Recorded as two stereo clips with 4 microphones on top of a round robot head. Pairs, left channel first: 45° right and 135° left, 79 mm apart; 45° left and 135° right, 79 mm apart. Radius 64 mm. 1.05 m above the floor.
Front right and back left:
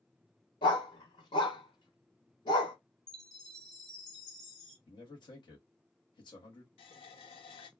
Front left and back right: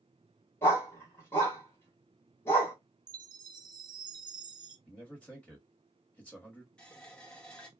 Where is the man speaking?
35° right, 1.3 m.